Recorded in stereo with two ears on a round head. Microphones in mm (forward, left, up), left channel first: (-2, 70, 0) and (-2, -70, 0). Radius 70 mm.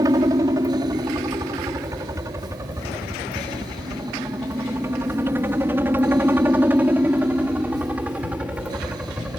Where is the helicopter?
25° right (ahead or behind); by 9.4 s 10° right (ahead or behind).